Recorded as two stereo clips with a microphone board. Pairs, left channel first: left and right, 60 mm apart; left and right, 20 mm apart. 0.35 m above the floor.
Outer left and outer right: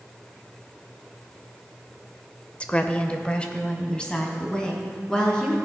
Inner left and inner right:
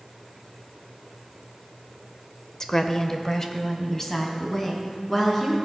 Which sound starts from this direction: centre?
A woman speaking, at 2.6 s.